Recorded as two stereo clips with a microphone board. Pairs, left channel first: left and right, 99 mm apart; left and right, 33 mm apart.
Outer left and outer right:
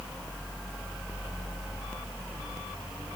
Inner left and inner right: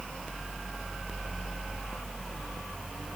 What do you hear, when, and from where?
Only background noise.